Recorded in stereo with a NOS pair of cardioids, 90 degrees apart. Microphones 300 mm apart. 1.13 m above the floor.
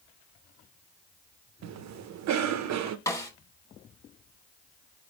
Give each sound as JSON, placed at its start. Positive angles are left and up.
{"t": 1.6, "sound": "a cough", "azimuth_deg": -65, "distance_m": 0.8}
{"t": 3.1, "sound": "a snare drum", "azimuth_deg": 10, "distance_m": 1.3}